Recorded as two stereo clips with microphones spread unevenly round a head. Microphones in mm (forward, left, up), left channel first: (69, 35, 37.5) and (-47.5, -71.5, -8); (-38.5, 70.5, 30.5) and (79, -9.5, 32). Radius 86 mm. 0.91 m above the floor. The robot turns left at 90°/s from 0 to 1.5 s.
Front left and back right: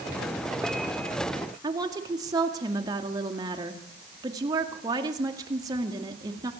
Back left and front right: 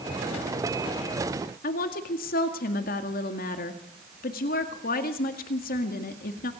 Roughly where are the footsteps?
I don't hear footsteps.